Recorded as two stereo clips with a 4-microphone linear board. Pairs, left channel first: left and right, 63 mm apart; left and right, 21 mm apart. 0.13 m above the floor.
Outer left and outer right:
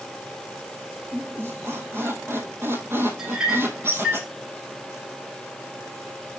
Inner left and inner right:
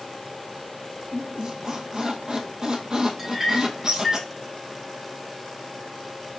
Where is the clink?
10° right (ahead or behind), 3 m.